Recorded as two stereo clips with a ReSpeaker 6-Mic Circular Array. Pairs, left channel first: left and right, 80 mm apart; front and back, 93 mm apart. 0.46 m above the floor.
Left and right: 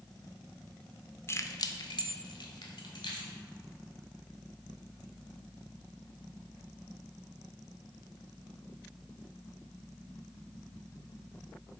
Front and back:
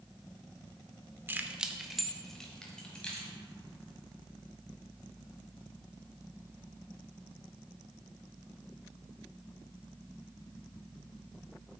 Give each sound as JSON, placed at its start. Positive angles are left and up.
{"t": 1.3, "sound": "keys jangling", "azimuth_deg": 125, "distance_m": 0.5}